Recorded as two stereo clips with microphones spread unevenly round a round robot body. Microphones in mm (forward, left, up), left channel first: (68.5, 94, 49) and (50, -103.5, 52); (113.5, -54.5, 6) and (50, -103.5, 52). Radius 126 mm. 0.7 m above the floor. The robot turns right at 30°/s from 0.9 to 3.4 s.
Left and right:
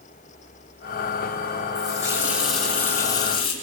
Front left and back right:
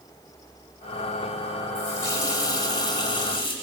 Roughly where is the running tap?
Ahead left.